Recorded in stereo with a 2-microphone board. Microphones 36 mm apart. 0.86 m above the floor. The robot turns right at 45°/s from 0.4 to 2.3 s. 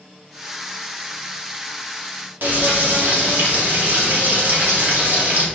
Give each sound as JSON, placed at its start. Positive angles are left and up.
{"t": 2.4, "sound": "frying", "side_deg": -60, "distance_m": 2.0}